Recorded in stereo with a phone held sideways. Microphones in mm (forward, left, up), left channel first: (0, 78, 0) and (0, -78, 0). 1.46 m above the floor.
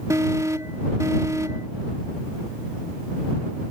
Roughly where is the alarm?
Right.